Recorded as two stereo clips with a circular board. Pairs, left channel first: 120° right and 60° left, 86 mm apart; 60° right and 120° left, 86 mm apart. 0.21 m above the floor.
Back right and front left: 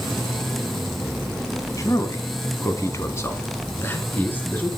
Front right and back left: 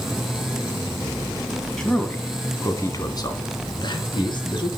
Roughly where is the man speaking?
Behind right.